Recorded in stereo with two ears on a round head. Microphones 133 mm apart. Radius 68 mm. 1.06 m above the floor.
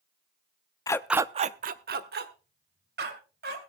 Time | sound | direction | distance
0.9 | a dog barking | 25° left (ahead or behind) | 0.6 m